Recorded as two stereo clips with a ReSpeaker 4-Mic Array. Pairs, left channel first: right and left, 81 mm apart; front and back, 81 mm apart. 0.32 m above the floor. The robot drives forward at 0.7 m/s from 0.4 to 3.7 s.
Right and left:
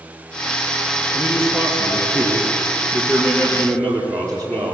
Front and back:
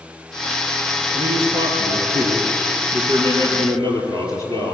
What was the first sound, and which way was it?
A man speaking, 170° right.